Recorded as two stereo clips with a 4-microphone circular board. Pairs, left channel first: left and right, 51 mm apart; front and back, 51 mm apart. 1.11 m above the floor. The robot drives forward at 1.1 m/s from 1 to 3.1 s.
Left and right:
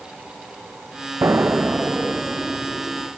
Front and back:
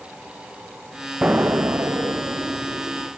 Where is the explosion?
115° right, 0.5 m; by 3.1 s 170° right, 2.5 m.